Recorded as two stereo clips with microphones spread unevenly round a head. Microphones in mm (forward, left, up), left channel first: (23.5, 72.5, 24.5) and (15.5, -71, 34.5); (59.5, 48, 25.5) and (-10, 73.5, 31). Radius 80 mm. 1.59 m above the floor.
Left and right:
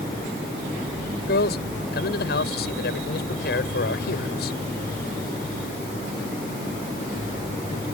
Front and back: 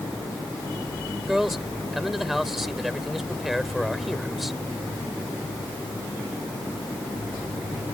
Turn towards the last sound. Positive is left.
turn(degrees=75)